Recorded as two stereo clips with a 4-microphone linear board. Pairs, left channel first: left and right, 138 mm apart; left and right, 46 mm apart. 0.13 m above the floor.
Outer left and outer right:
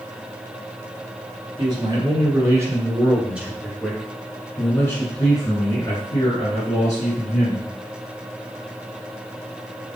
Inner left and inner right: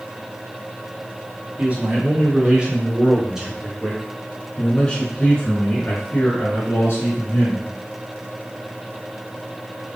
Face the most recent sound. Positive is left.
turn(degrees=55)  # may be behind; listen again after turning